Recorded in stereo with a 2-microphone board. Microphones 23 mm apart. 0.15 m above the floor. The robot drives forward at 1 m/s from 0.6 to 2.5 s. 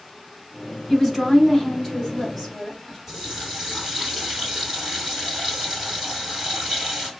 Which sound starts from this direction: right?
A running tap, at 3.1 s.